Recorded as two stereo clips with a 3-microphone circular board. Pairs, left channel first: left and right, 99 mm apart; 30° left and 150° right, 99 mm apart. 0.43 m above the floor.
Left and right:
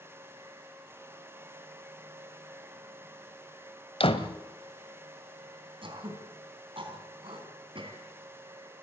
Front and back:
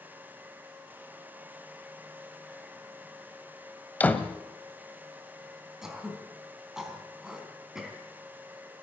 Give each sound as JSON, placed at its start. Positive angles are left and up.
{"t": 4.0, "sound": "a door slam", "azimuth_deg": 105, "distance_m": 1.3}
{"t": 5.8, "sound": "throat clearing", "azimuth_deg": -65, "distance_m": 3.5}